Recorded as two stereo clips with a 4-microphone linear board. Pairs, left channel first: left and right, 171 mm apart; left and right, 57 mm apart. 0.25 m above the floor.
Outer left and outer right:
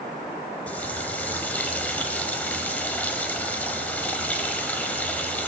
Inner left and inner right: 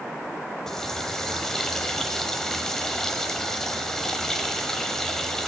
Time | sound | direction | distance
0.7 | a running tap | 10° left (ahead or behind) | 0.8 m